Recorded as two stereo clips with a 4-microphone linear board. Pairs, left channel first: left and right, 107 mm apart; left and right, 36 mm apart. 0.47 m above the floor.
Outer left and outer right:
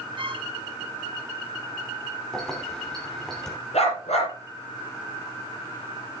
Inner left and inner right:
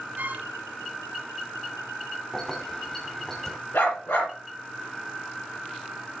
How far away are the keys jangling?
About 3 m.